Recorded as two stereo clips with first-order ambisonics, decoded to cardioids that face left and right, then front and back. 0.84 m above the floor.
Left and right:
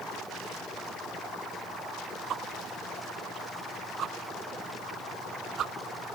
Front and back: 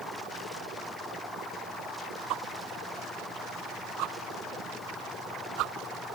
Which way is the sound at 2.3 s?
145° right.